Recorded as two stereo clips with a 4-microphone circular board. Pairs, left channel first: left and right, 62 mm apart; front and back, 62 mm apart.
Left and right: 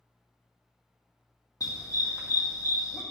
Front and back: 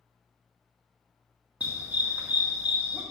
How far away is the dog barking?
About 2 m.